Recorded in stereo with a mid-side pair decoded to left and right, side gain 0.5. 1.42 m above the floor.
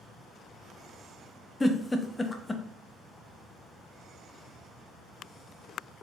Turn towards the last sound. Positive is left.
turn(degrees=20)